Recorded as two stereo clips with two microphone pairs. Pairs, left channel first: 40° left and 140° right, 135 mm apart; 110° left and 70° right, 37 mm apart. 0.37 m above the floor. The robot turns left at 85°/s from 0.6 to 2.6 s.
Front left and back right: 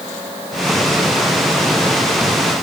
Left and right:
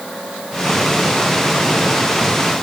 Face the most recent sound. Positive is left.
No sound to turn to.